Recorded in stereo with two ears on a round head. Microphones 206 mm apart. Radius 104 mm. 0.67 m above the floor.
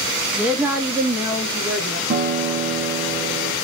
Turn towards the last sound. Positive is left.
turn(degrees=-45)  # may be behind; listen again after turning